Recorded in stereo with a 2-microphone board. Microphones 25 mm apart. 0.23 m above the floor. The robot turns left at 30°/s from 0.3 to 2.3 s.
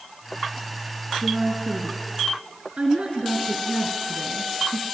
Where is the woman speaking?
60° right (ahead or behind), 3 m; by 4.8 s 55° right (ahead or behind), 3 m.